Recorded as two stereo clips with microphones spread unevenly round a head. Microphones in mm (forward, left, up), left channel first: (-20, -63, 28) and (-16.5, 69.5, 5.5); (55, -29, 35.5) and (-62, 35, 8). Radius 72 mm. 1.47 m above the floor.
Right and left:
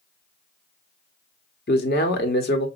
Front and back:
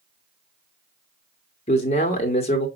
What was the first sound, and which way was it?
A man speaking, 75° right.